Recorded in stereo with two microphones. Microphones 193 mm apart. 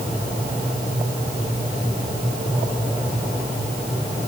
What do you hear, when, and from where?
Only background noise.